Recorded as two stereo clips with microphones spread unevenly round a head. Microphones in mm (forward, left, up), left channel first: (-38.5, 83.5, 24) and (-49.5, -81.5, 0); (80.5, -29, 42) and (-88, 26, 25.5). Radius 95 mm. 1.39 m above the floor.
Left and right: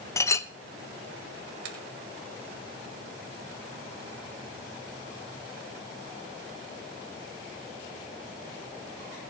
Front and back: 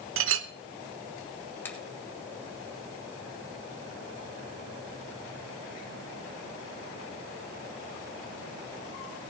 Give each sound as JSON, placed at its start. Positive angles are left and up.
{"t": 0.2, "sound": "a clink", "azimuth_deg": 150, "distance_m": 0.8}
{"t": 1.6, "sound": "a finger snap", "azimuth_deg": -100, "distance_m": 2.5}